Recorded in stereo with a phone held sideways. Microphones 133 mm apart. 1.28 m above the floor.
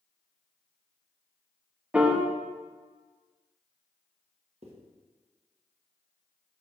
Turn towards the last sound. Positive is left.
turn(degrees=-50)  # may be behind; listen again after turning